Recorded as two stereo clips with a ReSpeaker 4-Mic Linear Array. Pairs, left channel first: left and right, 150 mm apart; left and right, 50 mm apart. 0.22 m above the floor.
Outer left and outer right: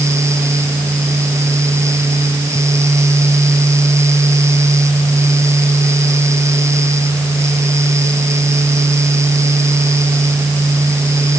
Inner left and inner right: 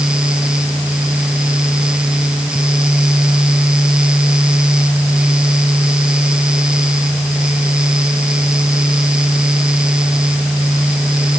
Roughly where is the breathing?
I don't hear breathing.